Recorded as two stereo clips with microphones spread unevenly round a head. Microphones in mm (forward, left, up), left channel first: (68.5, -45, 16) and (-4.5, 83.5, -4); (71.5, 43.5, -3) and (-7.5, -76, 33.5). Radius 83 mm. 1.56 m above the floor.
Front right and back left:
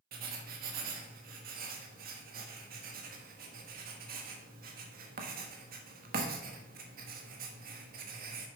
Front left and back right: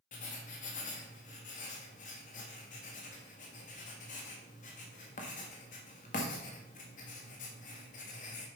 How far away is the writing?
About 1.3 m.